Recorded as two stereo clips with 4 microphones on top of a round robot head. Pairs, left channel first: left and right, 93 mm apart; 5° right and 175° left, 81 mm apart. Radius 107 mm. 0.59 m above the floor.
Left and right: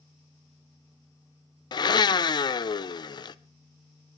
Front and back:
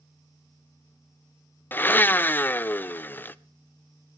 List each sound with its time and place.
1.7 s a blender: 60° left, 0.5 m